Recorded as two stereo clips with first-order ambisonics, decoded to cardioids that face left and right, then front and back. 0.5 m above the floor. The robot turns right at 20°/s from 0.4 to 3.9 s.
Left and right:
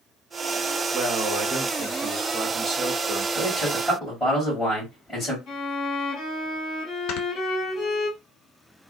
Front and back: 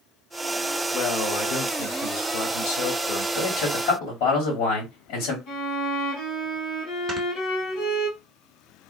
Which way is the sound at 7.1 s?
110° left.